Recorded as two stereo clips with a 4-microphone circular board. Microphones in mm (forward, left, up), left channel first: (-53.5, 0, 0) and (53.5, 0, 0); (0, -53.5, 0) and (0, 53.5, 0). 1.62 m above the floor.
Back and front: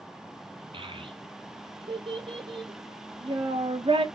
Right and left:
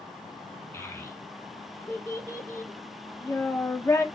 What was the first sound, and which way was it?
A child speaking, 30° right.